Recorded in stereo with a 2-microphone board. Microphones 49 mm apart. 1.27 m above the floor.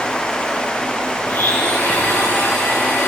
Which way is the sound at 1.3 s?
75° left (ahead or behind).